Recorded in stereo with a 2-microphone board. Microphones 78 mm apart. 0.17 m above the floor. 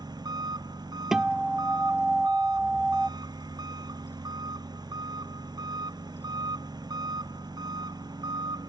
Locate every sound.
0.0 s an engine running: 60° right (ahead or behind)
1.1 s a guitar: 5° right (ahead or behind)